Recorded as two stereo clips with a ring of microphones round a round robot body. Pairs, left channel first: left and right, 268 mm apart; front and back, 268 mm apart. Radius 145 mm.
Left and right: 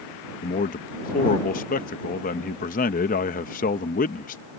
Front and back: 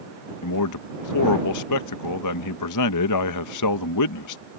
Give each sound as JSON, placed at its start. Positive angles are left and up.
{"t": 0.4, "sound": "a man speaking", "azimuth_deg": 25}